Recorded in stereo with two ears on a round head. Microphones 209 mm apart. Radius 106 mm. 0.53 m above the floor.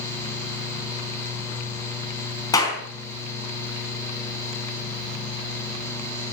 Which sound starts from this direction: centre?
A clap, at 2.5 s.